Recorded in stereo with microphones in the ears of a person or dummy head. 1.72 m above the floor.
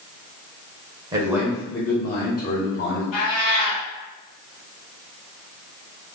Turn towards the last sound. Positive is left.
turn(degrees=40)  # may be behind; listen again after turning